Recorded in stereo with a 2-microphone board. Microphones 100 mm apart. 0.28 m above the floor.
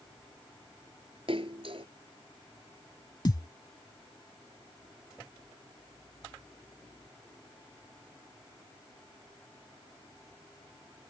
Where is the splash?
65° right (ahead or behind).